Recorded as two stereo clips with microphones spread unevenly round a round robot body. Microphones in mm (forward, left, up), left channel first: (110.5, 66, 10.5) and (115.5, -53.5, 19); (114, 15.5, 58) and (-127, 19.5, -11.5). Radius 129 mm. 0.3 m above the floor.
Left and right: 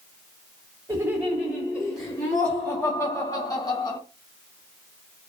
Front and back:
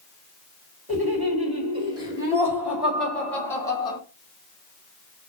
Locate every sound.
0.9 s laughter: 160° right, 1.6 m; by 4.0 s 85° left, 1.4 m